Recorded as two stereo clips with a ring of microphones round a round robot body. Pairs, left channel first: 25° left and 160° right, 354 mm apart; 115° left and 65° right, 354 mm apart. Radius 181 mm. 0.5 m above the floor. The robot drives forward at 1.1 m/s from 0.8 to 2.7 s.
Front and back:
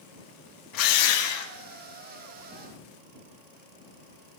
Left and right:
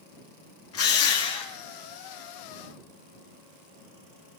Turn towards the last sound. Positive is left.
turn(degrees=85)